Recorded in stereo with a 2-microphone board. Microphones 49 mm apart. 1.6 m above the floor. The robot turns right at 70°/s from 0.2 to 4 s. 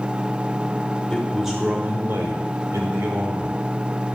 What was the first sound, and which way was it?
A man speaking, 165° left.